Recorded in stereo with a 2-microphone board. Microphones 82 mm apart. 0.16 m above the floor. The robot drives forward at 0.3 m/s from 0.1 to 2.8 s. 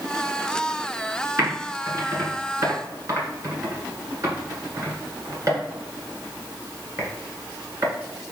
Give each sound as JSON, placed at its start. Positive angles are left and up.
{"t": 1.4, "sound": "typing on a keyboard", "side_deg": -40, "distance_m": 1.7}